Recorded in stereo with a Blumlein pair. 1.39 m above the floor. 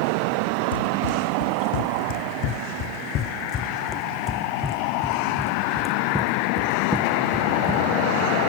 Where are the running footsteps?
65° left; by 7.9 s 10° right.